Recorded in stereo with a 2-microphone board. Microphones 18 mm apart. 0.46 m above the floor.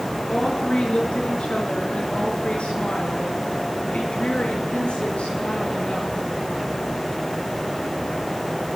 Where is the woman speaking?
55° left (ahead or behind), 7.5 m; by 6.2 s 75° left (ahead or behind), 10 m.